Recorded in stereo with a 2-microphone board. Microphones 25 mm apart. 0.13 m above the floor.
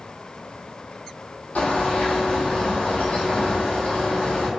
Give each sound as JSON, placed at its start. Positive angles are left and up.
{"t": 1.6, "sound": "a bird", "side_deg": 75, "distance_m": 1.2}